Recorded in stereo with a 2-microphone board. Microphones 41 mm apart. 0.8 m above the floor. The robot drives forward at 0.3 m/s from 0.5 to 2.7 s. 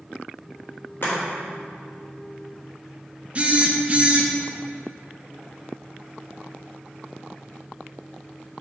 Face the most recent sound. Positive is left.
turn(degrees=-30)  # may be behind; listen again after turning